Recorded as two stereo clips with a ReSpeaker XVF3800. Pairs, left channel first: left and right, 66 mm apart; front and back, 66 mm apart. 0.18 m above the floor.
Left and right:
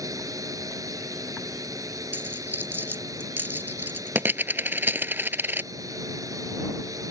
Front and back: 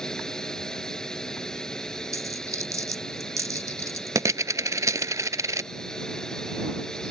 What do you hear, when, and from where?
0.0 s a drone: 80° right
2.1 s a dropped coin: 145° right